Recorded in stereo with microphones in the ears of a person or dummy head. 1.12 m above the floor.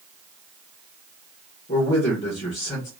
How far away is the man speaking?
About 1.2 m.